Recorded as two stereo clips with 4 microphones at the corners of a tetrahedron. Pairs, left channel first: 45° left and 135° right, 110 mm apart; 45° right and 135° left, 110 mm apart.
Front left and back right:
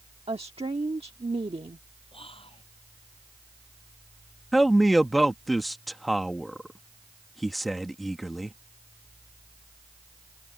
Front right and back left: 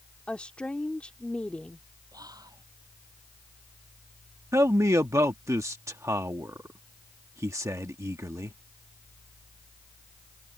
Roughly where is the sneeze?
No sneeze in this recording.